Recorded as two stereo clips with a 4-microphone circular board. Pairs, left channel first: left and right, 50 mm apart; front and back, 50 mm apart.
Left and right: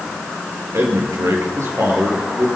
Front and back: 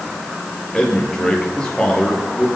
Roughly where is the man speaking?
Right.